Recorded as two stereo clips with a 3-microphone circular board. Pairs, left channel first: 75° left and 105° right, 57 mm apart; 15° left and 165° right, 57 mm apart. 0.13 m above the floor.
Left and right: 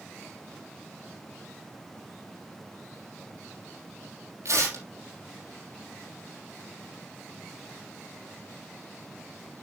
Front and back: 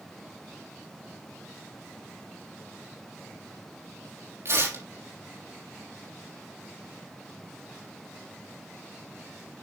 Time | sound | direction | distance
4.5 | tearing paper | 135° right | 4 m